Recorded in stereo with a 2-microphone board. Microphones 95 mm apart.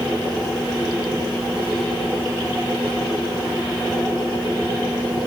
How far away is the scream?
I don't hear a scream.